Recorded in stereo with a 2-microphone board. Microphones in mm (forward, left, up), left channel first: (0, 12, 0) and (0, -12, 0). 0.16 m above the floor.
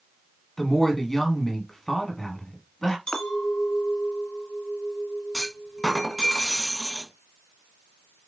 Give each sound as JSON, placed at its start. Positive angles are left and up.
{"t": 0.6, "sound": "a woman speaking", "side_deg": 20, "distance_m": 1.1}
{"t": 3.1, "sound": "a clink", "side_deg": 40, "distance_m": 0.9}
{"t": 5.3, "sound": "a clunk", "side_deg": 25, "distance_m": 0.7}